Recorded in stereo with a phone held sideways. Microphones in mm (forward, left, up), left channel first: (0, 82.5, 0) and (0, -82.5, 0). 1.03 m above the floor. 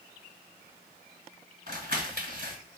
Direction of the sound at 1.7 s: 65° right (ahead or behind).